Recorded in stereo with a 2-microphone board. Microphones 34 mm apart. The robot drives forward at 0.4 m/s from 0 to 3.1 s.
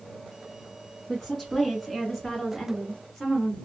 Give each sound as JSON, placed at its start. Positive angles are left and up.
{"t": 1.1, "sound": "a woman speaking", "side_deg": 5, "distance_m": 1.0}